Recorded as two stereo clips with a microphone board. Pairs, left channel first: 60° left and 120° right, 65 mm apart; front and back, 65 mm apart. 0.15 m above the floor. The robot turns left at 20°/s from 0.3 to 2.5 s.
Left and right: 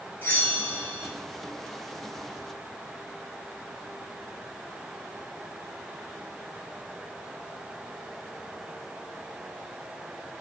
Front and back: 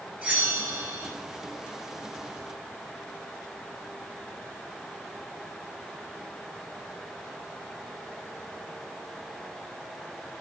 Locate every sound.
0.2 s a bell: 110° left, 0.9 m; by 1.1 s 95° left, 0.9 m